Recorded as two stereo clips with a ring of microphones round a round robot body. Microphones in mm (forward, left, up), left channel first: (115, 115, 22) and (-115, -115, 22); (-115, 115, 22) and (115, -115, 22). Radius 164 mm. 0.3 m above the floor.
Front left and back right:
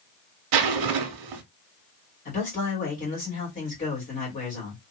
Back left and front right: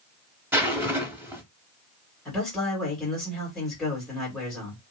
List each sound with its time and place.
0.5 s a zipper: 130° right, 0.6 m
2.2 s a man speaking: 45° left, 1.6 m